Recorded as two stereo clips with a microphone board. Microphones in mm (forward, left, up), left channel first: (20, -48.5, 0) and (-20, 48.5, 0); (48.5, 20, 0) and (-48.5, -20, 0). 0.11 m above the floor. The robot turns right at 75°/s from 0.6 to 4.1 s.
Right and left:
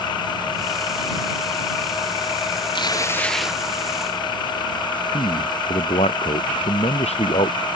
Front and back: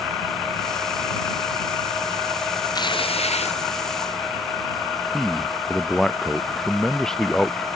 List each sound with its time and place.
2.8 s tearing paper: 25° right; by 3.6 s 35° left
5.1 s a man speaking: 60° right